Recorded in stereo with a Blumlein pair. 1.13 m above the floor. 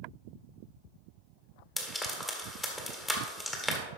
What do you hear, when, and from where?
1.8 s frying: 10° left, 1.8 m